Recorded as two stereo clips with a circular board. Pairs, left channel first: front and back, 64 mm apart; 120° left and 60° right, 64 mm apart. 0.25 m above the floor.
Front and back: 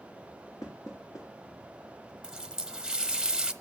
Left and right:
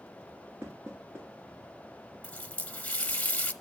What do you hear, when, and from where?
0.6 s knocking: 15° right, 3 m
2.2 s a running tap: 120° left, 0.7 m